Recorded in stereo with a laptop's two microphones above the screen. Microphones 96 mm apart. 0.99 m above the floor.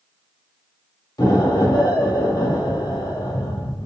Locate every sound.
1.2 s an explosion: 45° left (ahead or behind), 1.3 m